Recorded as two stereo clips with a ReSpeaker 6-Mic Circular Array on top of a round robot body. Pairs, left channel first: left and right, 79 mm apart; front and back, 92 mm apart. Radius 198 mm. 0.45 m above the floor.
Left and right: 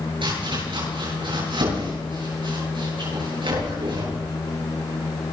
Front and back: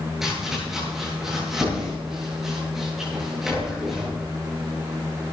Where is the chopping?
95° right, 9.5 m.